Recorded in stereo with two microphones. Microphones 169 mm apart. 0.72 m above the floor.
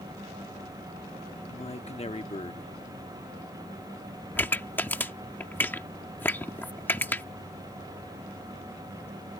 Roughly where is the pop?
Centre.